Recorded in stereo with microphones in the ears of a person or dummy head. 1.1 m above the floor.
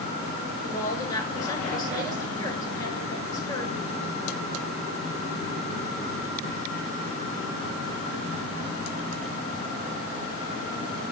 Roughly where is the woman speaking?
Left.